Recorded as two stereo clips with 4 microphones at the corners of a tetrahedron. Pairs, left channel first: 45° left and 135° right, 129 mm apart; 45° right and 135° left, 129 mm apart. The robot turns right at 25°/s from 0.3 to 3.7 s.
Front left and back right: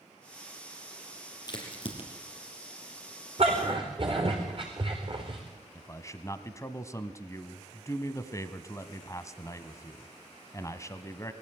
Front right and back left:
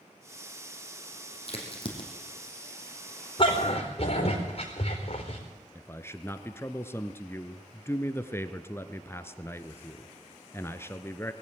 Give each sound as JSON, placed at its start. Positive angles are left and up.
{"t": 1.5, "sound": "a crack", "azimuth_deg": -10, "distance_m": 4.0}
{"t": 3.4, "sound": "a dog barking", "azimuth_deg": -95, "distance_m": 4.5}
{"t": 5.8, "sound": "a man speaking", "azimuth_deg": 5, "distance_m": 1.1}